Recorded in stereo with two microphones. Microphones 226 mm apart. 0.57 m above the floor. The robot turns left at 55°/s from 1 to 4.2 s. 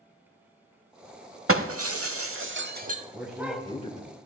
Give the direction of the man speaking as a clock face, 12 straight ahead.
6 o'clock.